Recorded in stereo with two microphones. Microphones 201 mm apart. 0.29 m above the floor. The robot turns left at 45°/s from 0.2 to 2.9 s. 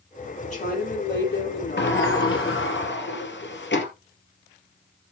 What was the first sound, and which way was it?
A woman speaking, 145° left.